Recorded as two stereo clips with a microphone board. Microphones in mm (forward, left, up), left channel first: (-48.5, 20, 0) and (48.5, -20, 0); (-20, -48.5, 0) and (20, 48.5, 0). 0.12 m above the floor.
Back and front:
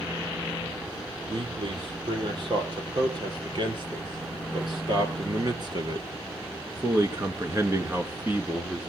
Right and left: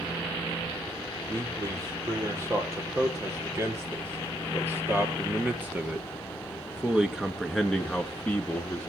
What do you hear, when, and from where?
1.3 s a man speaking: 10° left, 4.5 m; by 8.9 s 85° right, 1.6 m